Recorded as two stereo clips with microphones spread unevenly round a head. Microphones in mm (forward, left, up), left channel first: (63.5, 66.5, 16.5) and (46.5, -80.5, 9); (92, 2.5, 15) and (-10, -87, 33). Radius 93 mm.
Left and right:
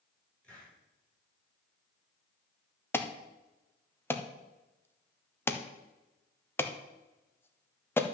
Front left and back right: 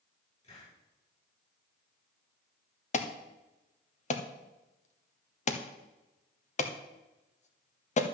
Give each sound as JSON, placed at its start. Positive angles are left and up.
{"t": 0.4, "sound": "a hiss", "azimuth_deg": 5, "distance_m": 7.5}
{"t": 2.9, "sound": "an alarm", "azimuth_deg": 10, "distance_m": 1.3}